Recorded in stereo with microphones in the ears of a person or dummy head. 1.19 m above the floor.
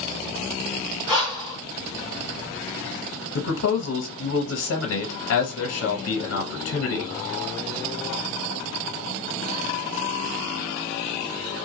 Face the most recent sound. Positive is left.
turn(degrees=85)